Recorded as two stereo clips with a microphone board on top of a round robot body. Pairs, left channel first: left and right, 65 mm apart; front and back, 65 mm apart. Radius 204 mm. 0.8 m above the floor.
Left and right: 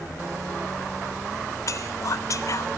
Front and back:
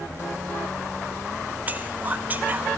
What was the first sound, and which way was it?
Whispering, 120° left.